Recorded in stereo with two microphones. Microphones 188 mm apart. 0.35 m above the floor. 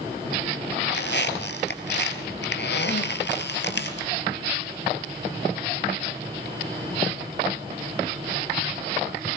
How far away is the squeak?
About 2 m.